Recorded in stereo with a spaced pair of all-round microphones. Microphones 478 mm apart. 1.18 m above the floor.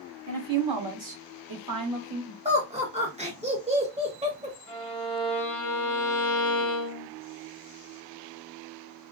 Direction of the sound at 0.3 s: 40° right (ahead or behind).